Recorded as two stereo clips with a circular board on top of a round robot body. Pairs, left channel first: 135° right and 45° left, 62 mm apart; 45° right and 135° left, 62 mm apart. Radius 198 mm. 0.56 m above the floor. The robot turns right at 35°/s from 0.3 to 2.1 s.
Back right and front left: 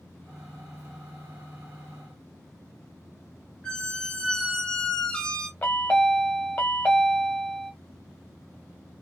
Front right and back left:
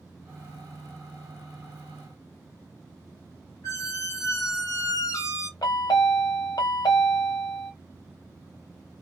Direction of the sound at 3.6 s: 60° right.